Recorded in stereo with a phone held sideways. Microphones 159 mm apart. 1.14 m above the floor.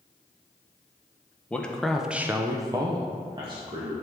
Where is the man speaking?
10° left (ahead or behind), 0.9 m; by 3.9 s 30° right (ahead or behind), 1.3 m.